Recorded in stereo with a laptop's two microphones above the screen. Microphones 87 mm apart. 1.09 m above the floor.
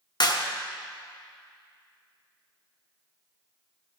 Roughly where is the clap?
Left.